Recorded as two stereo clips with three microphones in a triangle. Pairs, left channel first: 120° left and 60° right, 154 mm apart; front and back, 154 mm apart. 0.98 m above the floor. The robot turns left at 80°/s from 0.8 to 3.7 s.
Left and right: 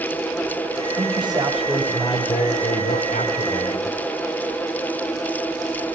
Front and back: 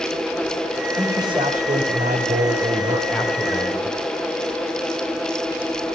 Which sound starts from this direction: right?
A man speaking, at 1.0 s.